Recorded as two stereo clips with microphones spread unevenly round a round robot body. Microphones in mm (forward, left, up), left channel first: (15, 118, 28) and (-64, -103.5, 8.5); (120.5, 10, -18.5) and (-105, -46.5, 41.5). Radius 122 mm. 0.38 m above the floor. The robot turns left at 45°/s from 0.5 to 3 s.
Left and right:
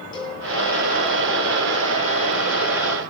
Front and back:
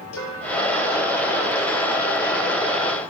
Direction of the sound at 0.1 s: 5° right.